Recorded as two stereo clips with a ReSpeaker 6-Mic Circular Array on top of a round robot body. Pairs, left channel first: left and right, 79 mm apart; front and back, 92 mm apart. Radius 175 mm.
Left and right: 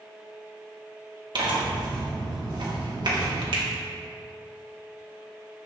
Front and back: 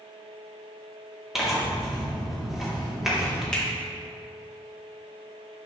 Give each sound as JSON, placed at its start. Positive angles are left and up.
{"t": 1.4, "sound": "tearing paper", "azimuth_deg": -90, "distance_m": 2.5}
{"t": 3.5, "sound": "a finger snap", "azimuth_deg": -80, "distance_m": 1.9}